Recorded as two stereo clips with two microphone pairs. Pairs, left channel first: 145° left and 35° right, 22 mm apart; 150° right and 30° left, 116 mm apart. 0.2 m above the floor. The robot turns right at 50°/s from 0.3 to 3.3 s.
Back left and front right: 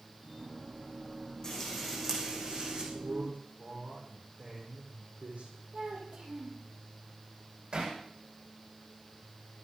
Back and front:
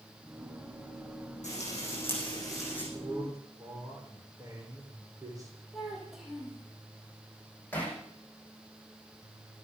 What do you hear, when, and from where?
1.4 s frying: 145° right, 8 m; by 2.8 s 75° right, 8 m
2.9 s a man speaking: 50° right, 9 m; by 5.5 s 30° right, 9 m
5.7 s a child speaking: 55° right, 6.5 m
7.7 s hammering: 75° right, 9.5 m